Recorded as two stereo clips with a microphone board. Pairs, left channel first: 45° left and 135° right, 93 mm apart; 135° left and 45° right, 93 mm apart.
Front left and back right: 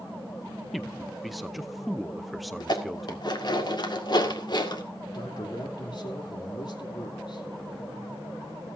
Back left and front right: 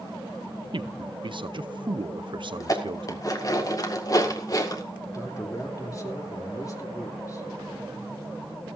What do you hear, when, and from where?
0.7 s a man speaking: 45° right, 0.6 m
2.6 s dishes clattering: 85° left, 1.8 m
5.1 s a man speaking: 85° left, 3 m